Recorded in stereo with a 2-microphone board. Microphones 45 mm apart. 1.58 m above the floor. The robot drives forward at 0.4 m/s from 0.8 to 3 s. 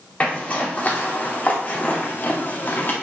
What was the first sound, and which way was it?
A zipper, 35° left (ahead or behind).